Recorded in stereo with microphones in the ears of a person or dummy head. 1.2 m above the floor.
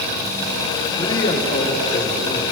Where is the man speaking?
20° left (ahead or behind), 2 m; by 2.4 s 50° left (ahead or behind), 3.5 m.